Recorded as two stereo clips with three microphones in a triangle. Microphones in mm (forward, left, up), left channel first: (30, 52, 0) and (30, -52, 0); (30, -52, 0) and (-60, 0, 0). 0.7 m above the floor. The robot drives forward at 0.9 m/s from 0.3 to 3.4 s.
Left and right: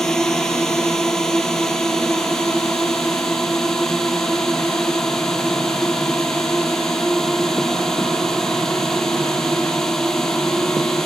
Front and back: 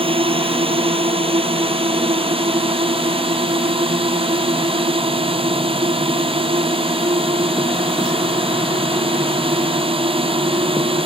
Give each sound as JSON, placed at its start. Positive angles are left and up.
{"t": 0.0, "sound": "a drone", "azimuth_deg": 175}